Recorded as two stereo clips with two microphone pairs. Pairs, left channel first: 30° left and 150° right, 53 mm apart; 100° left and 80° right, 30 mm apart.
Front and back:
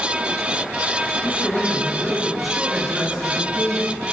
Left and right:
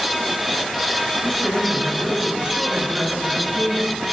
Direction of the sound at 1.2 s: 20° left.